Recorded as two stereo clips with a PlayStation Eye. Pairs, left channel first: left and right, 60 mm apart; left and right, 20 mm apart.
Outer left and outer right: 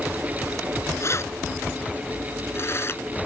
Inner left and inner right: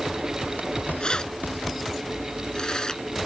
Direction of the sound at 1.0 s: 50° left (ahead or behind).